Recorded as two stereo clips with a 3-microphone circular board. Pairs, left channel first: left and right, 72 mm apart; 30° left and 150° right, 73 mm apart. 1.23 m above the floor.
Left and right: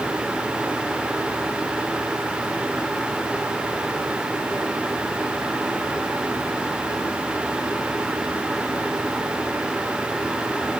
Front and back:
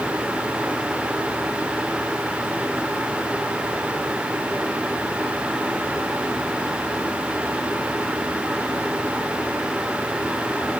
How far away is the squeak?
I don't hear a squeak.